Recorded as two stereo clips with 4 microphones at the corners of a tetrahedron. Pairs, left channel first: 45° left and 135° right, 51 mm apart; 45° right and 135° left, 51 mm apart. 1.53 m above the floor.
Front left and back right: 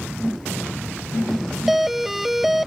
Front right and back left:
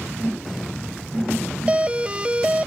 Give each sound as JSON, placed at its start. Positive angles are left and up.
{"t": 1.7, "sound": "a doorbell", "azimuth_deg": 145}